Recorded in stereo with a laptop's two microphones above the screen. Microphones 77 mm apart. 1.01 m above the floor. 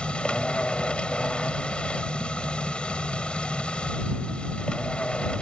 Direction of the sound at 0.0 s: 15° left (ahead or behind).